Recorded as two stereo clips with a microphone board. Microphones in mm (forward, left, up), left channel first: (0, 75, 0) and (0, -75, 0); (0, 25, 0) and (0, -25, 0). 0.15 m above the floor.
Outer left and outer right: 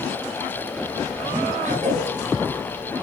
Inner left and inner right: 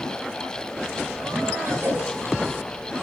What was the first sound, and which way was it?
A cough, 55° right (ahead or behind).